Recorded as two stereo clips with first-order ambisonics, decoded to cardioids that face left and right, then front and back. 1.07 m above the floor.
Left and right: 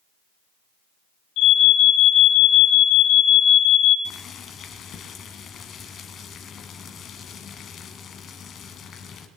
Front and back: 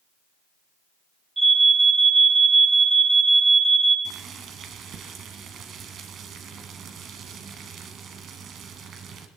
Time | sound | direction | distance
1.4 | an alarm | 105° left | 3 m
4.0 | boiling | 140° left | 1.3 m